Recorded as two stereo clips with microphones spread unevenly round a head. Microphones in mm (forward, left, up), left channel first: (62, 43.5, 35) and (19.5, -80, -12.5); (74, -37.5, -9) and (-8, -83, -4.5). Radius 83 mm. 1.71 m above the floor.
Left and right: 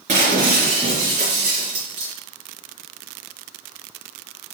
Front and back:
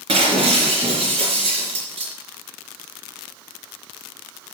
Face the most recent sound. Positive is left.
turn(degrees=-165)